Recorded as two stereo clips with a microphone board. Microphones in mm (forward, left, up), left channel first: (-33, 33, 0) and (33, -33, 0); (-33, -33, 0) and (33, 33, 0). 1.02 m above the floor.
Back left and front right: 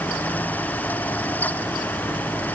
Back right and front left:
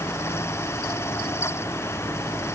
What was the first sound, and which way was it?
Only background noise.